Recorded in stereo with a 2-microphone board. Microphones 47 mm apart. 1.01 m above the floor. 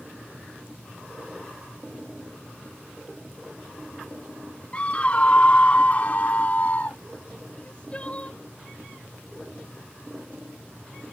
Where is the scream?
30° left (ahead or behind); by 7.0 s 40° left (ahead or behind).